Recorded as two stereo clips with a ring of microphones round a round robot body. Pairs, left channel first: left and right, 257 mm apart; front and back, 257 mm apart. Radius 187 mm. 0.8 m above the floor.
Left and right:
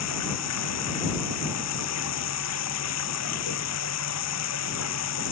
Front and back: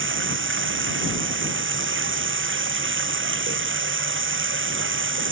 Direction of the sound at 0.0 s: 140° left.